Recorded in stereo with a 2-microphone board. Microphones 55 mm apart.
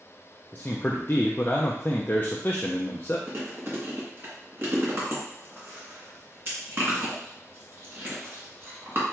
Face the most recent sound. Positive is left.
turn(degrees=-40)  # may be behind; listen again after turning